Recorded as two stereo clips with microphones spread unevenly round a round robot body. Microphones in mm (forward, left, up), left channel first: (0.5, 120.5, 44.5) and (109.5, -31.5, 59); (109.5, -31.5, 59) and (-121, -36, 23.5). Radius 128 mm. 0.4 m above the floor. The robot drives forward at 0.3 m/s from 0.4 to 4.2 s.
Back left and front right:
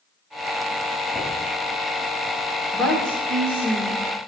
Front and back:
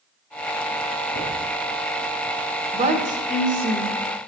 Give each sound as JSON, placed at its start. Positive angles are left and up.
{"t": 1.1, "sound": "knocking", "azimuth_deg": 40, "distance_m": 1.9}
{"t": 2.7, "sound": "a woman speaking", "azimuth_deg": -155, "distance_m": 1.1}